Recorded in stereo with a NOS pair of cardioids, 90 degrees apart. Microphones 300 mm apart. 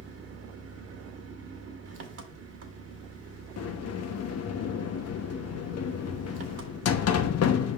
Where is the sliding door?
55° left, 1.0 m.